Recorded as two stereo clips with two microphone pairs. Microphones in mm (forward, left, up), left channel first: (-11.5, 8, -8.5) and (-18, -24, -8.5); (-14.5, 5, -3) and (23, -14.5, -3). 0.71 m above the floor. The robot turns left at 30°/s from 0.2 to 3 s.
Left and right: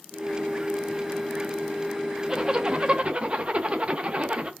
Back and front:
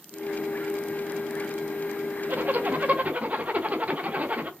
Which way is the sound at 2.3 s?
40° right.